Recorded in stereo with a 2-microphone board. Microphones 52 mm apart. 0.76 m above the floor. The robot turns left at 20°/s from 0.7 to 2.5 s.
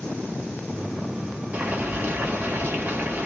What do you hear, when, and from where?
1.5 s boiling: 30° right (ahead or behind), 1.0 m; by 3.3 s 40° right (ahead or behind), 1.0 m